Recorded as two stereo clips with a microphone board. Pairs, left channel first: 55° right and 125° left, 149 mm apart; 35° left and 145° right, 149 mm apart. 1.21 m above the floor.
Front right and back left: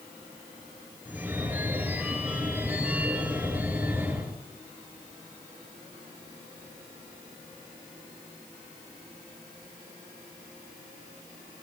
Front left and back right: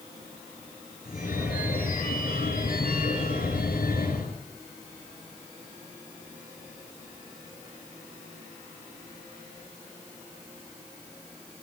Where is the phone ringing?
45° left, 7.5 m.